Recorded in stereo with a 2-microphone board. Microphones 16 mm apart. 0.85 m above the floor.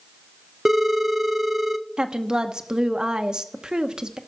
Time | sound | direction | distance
0.7 | a phone ringing | 25° right (ahead or behind) | 0.6 m
2.0 | a woman speaking | 60° right (ahead or behind) | 0.9 m